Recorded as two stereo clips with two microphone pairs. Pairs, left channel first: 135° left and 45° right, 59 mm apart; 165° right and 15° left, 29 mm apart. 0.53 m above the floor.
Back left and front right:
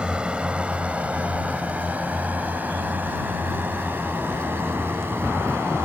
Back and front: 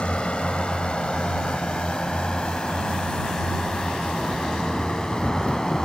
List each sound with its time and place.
0.0 s a drone: 120° right; by 5.8 s 95° right